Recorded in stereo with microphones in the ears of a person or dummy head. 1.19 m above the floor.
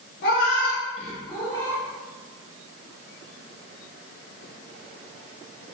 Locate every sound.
0.2 s a cat meowing: 60° left (ahead or behind), 0.7 m; by 1.8 s 15° left (ahead or behind), 1.6 m